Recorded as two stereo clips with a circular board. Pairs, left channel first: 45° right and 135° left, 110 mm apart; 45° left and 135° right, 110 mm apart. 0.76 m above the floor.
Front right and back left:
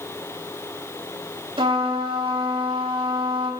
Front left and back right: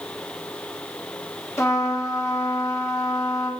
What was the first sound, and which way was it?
A trumpet, 110° left.